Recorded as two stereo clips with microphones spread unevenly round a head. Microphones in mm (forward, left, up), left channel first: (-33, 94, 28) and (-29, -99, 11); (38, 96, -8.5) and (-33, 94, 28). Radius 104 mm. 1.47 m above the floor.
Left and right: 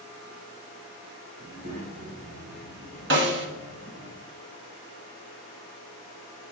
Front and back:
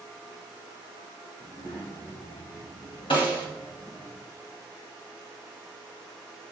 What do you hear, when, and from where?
1.4 s a child speaking: 75° right, 3.5 m; by 4.1 s 55° right, 4 m
3.1 s a snare drum: 55° right, 1.1 m